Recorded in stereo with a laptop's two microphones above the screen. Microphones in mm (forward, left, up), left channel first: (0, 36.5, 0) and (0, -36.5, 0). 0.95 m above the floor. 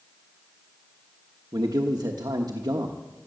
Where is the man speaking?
60° right (ahead or behind), 1.1 m.